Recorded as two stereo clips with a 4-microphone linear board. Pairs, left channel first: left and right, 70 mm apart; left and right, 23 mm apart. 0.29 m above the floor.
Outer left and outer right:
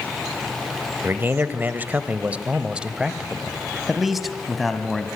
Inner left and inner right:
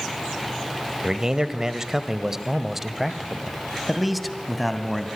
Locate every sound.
1.0 s a man speaking: 30° right (ahead or behind), 1.6 m; by 5.1 s 5° left (ahead or behind), 2.5 m